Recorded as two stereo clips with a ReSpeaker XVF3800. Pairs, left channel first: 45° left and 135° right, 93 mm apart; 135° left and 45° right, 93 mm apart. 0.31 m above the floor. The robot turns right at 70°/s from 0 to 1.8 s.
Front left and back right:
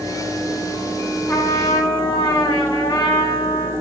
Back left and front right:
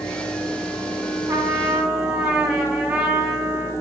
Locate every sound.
1.3 s a trumpet: 5° right, 1.7 m; by 3.7 s 30° left, 1.7 m